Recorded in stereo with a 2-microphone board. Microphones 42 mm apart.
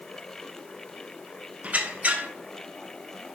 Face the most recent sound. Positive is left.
turn(degrees=-35)  # may be behind; listen again after turning